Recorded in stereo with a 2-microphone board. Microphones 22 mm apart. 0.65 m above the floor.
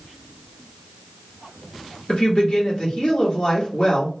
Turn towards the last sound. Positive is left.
turn(degrees=50)  # may be behind; listen again after turning